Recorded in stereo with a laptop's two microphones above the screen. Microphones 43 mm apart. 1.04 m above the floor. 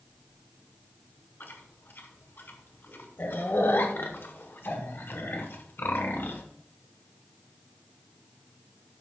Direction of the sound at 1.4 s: 65° left (ahead or behind).